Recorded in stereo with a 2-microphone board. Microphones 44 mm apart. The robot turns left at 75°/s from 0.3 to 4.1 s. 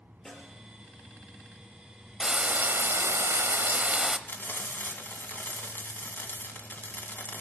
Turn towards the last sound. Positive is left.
turn(degrees=50)  # may be behind; listen again after turning